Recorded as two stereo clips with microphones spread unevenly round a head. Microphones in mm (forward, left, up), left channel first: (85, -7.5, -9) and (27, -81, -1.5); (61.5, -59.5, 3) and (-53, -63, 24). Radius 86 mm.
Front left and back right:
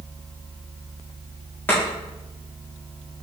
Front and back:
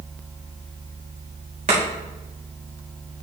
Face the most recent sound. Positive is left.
turn(degrees=130)